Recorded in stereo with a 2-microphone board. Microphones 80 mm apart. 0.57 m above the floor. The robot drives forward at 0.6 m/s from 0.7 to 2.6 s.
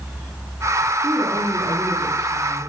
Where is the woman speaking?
70° right (ahead or behind), 4.5 m; by 2.7 s 60° right (ahead or behind), 5 m.